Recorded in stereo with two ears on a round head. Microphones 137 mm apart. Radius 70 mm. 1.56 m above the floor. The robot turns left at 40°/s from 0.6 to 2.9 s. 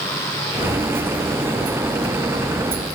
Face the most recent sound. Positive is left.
No sound to turn to.